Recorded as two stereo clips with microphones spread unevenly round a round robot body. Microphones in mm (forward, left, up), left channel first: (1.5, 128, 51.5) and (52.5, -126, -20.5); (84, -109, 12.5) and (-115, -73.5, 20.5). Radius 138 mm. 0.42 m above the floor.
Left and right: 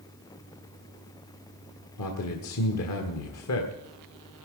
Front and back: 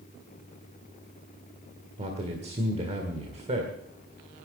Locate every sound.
2.0 s a man speaking: 120° left, 1.7 m